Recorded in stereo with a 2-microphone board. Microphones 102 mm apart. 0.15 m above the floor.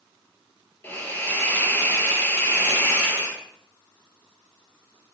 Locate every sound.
0.8 s a hiss: 20° left (ahead or behind), 2.0 m